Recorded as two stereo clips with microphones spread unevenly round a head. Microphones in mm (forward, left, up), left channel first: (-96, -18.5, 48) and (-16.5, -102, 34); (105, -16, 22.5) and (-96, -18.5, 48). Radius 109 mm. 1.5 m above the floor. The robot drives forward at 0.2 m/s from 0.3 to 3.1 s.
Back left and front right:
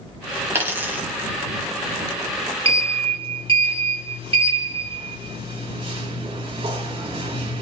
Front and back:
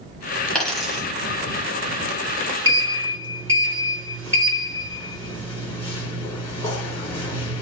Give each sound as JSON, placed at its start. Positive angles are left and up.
{"t": 0.6, "sound": "a dropped coin", "azimuth_deg": -105, "distance_m": 0.8}
{"t": 2.6, "sound": "a sliding door", "azimuth_deg": -80, "distance_m": 1.8}